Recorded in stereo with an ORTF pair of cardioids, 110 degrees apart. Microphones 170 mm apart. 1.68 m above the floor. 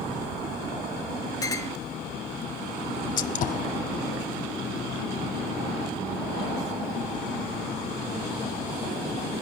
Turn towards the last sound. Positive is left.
turn(degrees=50)